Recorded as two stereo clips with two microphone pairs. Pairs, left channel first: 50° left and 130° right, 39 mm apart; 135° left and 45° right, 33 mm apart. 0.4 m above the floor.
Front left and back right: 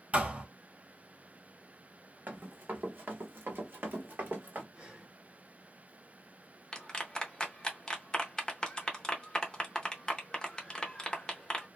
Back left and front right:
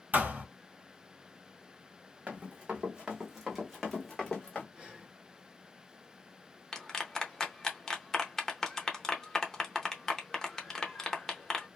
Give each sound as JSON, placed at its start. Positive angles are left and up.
{"t": 0.1, "sound": "a thud", "azimuth_deg": -75, "distance_m": 1.0}
{"t": 2.3, "sound": "running footsteps", "azimuth_deg": -90, "distance_m": 1.3}
{"t": 4.7, "sound": "breathing", "azimuth_deg": -90, "distance_m": 1.3}
{"t": 6.7, "sound": "a clap", "azimuth_deg": 90, "distance_m": 0.7}